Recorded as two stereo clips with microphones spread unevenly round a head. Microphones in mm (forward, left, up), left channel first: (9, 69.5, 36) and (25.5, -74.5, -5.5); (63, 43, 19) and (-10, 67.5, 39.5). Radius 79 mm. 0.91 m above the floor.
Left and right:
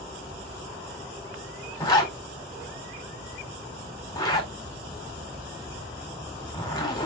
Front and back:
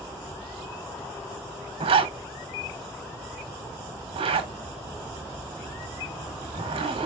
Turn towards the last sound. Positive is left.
turn(degrees=170)